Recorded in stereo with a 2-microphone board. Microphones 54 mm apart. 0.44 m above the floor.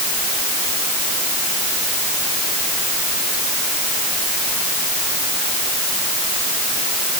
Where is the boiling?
No boiling in this recording.